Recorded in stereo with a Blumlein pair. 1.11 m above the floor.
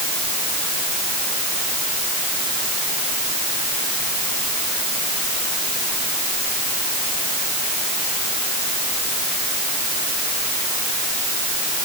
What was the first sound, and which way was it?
Only background noise.